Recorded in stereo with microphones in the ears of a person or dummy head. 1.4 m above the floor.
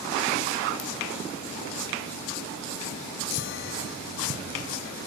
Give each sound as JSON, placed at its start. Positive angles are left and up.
{"t": 0.8, "sound": "a ringtone", "side_deg": 75, "distance_m": 1.3}
{"t": 3.3, "sound": "a chime", "side_deg": 60, "distance_m": 0.7}